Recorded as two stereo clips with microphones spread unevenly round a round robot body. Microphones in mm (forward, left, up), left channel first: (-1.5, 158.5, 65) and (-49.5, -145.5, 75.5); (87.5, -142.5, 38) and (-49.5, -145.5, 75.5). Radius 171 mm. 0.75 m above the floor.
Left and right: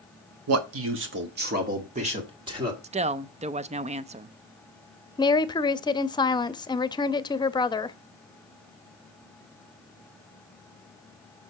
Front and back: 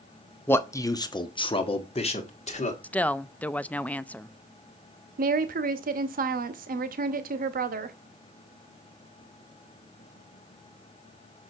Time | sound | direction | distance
0.5 | a man speaking | 65° right | 1.3 m
2.8 | a woman speaking | 45° right | 0.6 m
5.2 | a woman speaking | 155° left | 0.8 m